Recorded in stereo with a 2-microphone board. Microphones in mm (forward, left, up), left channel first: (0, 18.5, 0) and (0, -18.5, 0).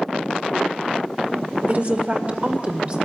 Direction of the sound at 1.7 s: 50° right (ahead or behind).